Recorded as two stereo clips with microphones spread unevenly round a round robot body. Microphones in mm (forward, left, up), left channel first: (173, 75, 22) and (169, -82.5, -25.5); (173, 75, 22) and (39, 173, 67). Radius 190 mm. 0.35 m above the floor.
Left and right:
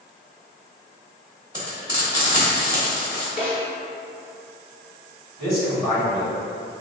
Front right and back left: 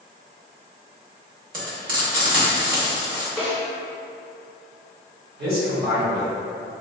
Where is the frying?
170° left, 0.8 m.